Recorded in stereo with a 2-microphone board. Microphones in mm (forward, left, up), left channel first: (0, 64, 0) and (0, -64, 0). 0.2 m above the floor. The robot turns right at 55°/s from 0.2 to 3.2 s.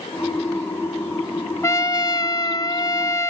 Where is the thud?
I don't hear a thud.